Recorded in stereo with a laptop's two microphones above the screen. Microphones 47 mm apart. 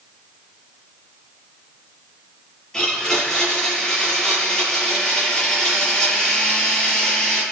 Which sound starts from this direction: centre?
A blender, at 2.7 s.